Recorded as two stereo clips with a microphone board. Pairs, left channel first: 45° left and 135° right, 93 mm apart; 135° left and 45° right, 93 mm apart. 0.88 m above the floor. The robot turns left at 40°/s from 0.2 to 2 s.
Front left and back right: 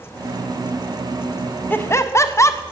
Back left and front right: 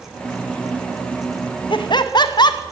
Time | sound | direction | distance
1.7 | laughter | 115° left | 0.7 m